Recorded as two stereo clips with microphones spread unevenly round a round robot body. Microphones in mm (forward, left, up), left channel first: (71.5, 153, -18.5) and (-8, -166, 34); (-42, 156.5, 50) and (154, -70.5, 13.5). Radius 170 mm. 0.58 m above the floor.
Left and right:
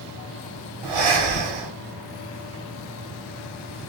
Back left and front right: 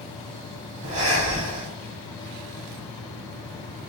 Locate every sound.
0.8 s breathing: 115° right, 0.8 m